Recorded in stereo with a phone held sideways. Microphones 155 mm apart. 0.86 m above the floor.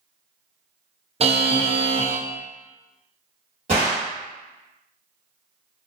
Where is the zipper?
No zipper in this recording.